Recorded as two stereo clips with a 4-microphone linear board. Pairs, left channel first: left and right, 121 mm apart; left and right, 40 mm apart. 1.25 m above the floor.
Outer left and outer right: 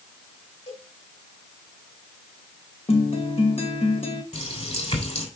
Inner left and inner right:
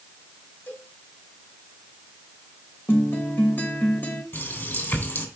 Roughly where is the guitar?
Left.